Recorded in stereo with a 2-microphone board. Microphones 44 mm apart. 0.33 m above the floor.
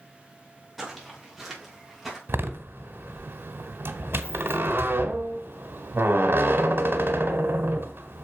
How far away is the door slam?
About 1.3 m.